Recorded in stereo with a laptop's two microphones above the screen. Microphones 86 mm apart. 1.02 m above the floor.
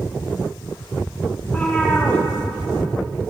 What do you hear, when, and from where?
1.4 s a cat meowing: 25° left (ahead or behind), 5 m; by 3.3 s 10° left (ahead or behind), 4 m